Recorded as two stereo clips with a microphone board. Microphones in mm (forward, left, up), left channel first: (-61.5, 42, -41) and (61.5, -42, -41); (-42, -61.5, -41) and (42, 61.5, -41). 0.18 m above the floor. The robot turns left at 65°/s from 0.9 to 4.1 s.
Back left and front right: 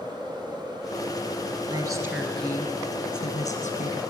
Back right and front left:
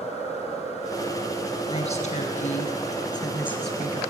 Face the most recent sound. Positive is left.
turn(degrees=120)